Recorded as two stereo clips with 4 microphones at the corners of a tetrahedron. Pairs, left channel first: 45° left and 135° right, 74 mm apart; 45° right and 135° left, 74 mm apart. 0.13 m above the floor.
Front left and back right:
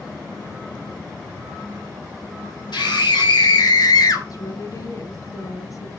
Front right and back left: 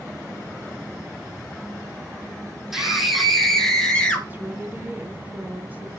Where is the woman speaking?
75° left, 3 m.